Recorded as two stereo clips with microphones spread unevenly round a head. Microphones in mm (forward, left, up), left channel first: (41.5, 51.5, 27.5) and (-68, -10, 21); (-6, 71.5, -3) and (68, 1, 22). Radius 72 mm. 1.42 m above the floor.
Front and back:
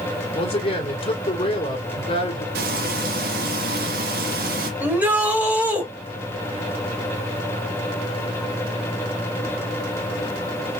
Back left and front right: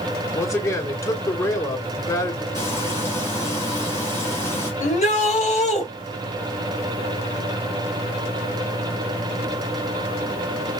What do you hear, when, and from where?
0.3 s a man speaking: 75° left, 3 m
2.5 s frying: 145° right, 1.9 m
4.8 s a shout: 135° left, 3.5 m